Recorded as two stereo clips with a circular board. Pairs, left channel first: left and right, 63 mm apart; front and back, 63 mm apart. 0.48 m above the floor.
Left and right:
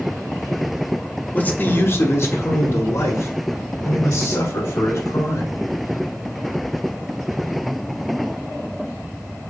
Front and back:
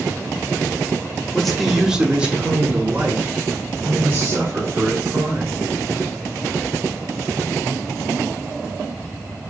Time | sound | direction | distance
1.3 | a man speaking | 75° left | 1.0 m